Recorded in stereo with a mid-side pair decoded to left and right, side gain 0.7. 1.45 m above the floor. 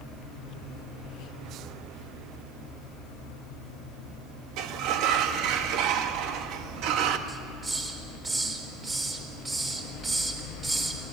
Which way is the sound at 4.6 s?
60° right.